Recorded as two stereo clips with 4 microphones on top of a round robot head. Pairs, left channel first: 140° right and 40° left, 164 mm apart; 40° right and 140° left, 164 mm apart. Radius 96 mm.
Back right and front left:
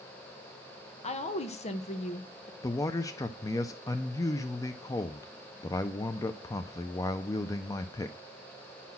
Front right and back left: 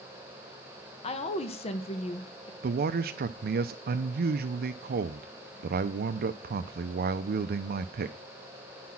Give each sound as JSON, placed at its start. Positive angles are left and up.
{"t": 1.0, "sound": "a woman speaking", "azimuth_deg": -90, "distance_m": 1.2}
{"t": 2.6, "sound": "a man speaking", "azimuth_deg": 150, "distance_m": 0.5}